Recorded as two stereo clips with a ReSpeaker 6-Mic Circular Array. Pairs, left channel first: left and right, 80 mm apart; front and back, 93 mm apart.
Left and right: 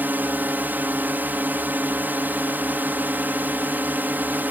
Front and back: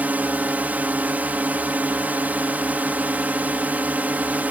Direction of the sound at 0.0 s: 125° right.